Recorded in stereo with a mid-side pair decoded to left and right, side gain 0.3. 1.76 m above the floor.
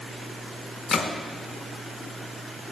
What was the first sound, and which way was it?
A gunshot, 65° left.